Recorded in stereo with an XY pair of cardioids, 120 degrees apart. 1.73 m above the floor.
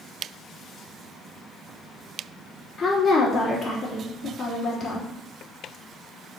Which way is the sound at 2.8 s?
35° left.